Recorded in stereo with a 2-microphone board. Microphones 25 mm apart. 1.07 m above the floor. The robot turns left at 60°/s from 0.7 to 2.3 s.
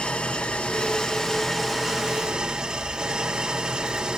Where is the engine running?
65° left, 2 m; by 4.2 s 30° right, 2 m.